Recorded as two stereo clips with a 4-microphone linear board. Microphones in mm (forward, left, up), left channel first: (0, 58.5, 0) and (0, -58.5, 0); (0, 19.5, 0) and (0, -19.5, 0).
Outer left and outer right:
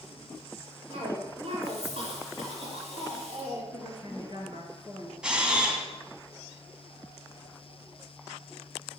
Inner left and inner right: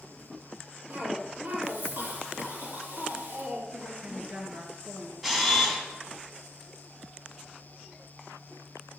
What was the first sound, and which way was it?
A cough, 65° right (ahead or behind).